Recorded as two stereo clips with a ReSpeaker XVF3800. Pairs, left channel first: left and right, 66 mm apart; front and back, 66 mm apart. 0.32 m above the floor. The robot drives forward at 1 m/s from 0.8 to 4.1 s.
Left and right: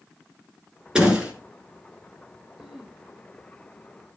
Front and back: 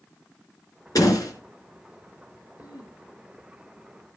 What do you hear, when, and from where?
0.9 s a door slam: 15° right, 3.5 m
2.6 s throat clearing: 5° right, 4.5 m